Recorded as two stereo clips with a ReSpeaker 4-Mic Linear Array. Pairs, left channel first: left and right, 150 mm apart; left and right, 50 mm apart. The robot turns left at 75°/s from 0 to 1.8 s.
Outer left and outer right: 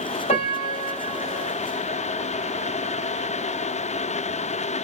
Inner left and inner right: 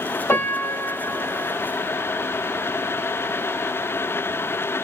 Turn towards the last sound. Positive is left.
turn(degrees=-55)